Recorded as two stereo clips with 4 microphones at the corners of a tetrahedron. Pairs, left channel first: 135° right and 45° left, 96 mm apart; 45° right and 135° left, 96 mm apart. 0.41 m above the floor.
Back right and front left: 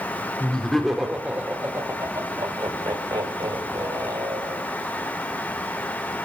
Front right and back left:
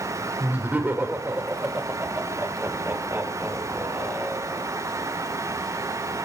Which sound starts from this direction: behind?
Laughter, at 0.4 s.